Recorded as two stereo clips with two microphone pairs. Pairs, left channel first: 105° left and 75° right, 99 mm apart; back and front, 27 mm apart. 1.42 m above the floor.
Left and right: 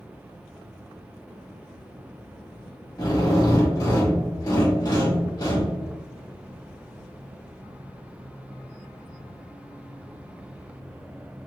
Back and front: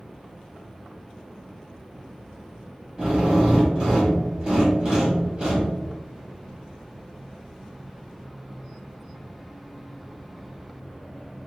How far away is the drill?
About 1.7 m.